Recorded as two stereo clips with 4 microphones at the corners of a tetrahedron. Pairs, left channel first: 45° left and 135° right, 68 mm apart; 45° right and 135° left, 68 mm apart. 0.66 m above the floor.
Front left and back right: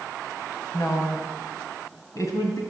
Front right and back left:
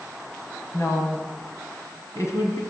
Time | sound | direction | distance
0.7 | a woman speaking | 5° left | 4 m